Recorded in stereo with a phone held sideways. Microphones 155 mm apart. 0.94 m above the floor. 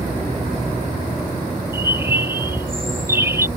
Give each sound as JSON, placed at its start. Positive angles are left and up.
{"t": 1.7, "sound": "a bird", "side_deg": -15}